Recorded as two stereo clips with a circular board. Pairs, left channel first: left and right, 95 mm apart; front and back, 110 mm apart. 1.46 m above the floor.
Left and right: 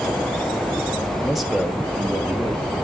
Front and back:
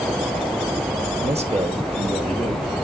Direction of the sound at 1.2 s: 175° left.